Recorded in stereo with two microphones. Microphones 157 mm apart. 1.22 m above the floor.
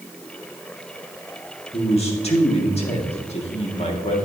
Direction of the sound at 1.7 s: 40° left (ahead or behind).